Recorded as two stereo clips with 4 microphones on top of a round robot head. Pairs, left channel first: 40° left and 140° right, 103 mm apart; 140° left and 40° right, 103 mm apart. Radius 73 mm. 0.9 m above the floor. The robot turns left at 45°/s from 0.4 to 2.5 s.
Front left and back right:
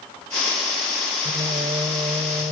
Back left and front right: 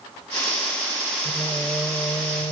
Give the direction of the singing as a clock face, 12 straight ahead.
4 o'clock.